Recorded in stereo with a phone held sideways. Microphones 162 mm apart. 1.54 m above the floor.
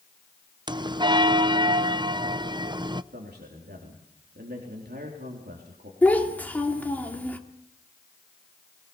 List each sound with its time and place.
0.7 s a bell: 30° right (ahead or behind), 0.6 m
3.1 s a man speaking: 85° right, 3.5 m
6.0 s a child speaking: 10° left (ahead or behind), 2 m